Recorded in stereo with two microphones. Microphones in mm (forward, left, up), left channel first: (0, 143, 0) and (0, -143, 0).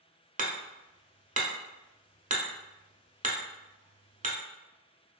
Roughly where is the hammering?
Right.